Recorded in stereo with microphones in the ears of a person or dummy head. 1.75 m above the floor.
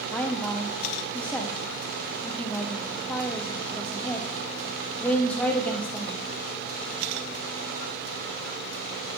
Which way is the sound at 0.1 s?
5° left (ahead or behind).